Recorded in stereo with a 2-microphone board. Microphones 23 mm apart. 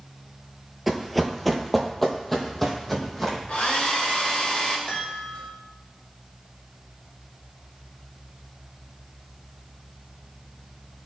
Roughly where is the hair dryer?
Left.